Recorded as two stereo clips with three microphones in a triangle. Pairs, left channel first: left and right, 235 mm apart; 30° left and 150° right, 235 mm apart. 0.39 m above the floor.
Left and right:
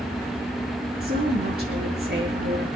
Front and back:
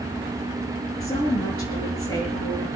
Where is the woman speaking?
40° right, 6.5 m.